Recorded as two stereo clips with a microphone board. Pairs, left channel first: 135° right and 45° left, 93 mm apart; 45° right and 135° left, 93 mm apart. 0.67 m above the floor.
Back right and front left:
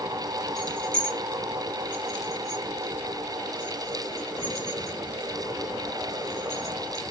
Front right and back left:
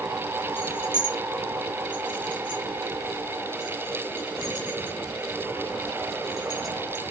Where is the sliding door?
I don't hear a sliding door.